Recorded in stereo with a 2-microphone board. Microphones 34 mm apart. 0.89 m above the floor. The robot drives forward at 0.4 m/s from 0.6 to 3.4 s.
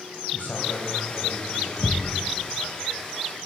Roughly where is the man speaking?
Left.